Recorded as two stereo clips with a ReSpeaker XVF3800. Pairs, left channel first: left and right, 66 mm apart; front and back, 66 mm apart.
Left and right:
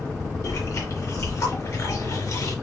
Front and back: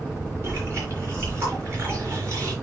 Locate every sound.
0.4 s chewing: 135° left, 4 m